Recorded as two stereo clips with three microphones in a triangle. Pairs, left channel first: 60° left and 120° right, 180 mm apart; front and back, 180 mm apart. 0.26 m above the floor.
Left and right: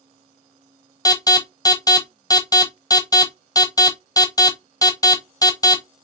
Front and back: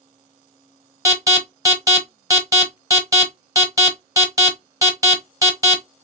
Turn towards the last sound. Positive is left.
turn(degrees=115)